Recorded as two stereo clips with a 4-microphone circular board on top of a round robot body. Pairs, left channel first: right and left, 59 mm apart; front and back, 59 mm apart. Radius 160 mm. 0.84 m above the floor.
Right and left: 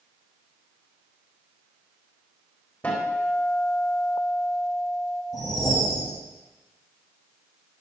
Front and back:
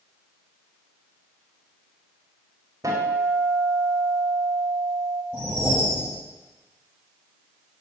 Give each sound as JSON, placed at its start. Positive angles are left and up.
{"t": 2.8, "sound": "a guitar", "azimuth_deg": -155, "distance_m": 4.5}
{"t": 5.3, "sound": "a whoosh", "azimuth_deg": -115, "distance_m": 7.5}